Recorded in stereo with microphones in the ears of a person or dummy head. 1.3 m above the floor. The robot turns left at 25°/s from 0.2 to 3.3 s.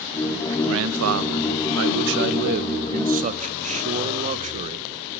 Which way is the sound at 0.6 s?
80° right.